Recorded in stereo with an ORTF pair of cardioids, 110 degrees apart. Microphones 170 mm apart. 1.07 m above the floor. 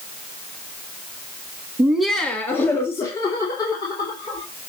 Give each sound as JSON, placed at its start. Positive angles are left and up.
{"t": 1.8, "sound": "laughter", "azimuth_deg": -10, "distance_m": 0.8}